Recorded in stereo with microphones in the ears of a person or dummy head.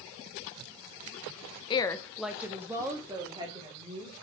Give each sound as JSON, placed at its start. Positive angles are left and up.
{"t": 1.7, "sound": "a woman speaking", "side_deg": 25, "distance_m": 0.6}